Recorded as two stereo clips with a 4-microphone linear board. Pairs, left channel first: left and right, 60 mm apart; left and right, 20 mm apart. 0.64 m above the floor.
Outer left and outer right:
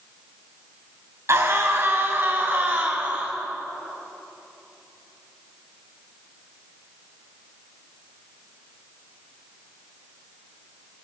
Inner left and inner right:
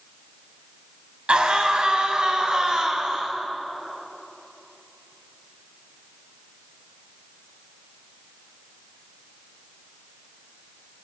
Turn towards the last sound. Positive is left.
turn(degrees=-30)  # may be behind; listen again after turning